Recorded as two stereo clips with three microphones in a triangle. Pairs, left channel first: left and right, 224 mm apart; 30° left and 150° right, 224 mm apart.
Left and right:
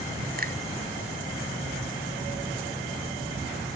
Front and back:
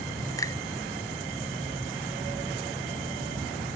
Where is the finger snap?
45° right.